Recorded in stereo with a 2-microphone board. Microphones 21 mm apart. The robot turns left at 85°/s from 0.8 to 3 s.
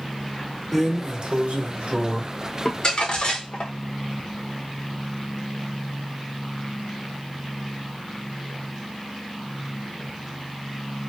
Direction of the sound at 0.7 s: 20° right.